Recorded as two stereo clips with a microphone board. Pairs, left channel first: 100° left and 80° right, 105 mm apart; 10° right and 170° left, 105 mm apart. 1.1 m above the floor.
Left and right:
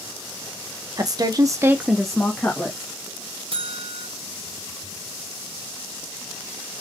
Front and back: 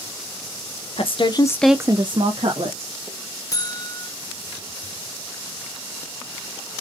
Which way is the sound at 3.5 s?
65° right.